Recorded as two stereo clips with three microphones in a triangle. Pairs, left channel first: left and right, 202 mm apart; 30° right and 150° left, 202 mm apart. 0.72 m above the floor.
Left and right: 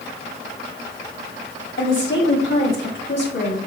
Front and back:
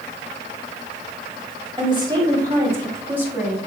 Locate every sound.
1.8 s a woman speaking: 90° left, 4 m; by 3.6 s 70° left, 5.5 m